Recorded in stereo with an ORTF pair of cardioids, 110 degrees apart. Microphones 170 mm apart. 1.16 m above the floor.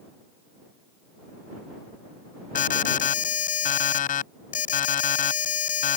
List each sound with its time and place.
2.5 s an alarm: 55° left